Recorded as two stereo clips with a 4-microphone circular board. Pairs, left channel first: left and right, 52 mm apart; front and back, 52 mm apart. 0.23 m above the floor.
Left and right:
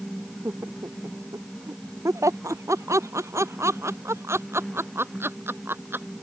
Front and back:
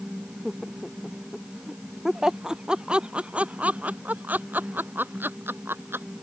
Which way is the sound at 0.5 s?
80° right.